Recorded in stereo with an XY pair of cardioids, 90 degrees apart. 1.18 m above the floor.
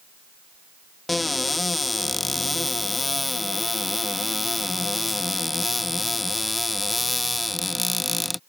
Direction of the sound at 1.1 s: 20° left.